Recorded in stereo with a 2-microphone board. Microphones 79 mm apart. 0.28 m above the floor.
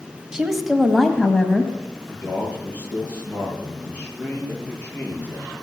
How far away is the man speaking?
About 7 m.